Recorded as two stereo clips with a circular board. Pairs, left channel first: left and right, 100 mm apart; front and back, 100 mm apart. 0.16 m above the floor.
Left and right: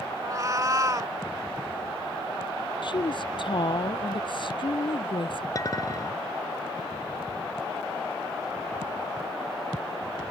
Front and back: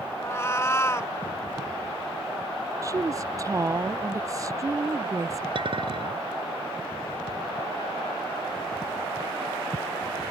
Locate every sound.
0.2 s a cat meowing: 50° right
2.8 s a woman speaking: 125° left
5.5 s a clink: 145° left